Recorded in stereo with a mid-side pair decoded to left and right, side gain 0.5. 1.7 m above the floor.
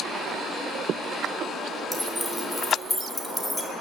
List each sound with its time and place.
1.9 s keys jangling: 5° left, 4 m; by 3.7 s 15° left, 3 m